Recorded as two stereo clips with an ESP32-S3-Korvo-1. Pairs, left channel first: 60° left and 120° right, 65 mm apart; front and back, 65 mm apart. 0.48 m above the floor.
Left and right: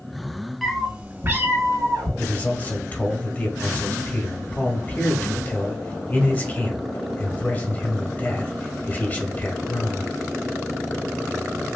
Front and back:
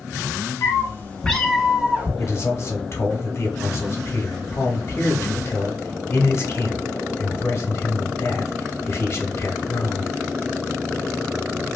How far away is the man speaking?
About 0.9 m.